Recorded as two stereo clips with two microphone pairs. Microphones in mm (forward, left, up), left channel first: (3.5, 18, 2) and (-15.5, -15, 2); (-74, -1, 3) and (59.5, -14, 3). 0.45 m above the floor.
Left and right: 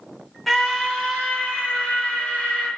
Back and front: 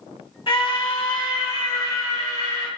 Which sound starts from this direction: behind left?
A scream, at 0.5 s.